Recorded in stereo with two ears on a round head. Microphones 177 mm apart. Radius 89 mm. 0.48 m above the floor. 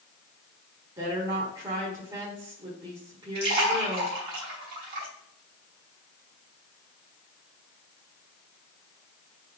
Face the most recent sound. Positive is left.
turn(degrees=-50)  # may be behind; listen again after turning